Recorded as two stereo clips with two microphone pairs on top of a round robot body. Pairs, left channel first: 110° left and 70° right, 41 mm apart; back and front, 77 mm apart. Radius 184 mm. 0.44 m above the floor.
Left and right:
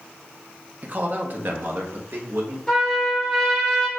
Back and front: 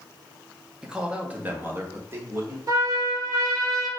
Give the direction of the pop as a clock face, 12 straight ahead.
No pop in this recording.